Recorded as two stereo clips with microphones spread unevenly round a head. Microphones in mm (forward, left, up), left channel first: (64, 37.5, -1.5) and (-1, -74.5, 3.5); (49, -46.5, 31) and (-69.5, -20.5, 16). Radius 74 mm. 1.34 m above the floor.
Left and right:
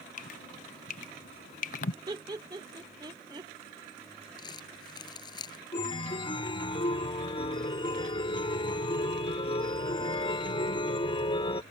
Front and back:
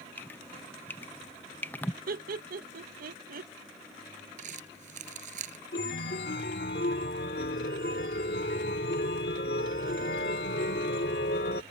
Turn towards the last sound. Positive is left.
turn(degrees=5)